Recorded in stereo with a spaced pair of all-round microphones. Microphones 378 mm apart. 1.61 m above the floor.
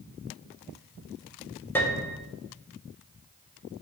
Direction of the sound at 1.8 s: 5° left (ahead or behind).